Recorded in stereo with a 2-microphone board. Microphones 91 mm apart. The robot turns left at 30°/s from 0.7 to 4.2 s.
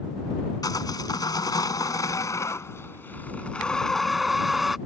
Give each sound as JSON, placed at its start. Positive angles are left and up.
{"t": 0.6, "sound": "sawing", "azimuth_deg": 100}